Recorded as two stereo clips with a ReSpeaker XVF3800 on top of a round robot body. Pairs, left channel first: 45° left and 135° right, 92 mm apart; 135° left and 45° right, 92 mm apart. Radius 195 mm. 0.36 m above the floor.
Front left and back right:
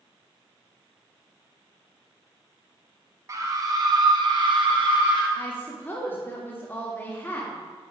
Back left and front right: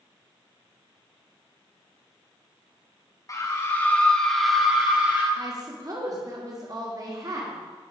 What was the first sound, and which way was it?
A scream, straight behind.